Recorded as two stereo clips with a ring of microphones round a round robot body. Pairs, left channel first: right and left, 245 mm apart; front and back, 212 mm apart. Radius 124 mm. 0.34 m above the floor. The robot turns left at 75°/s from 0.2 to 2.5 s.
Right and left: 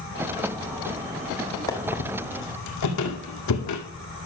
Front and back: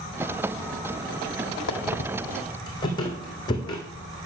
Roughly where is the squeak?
Ahead.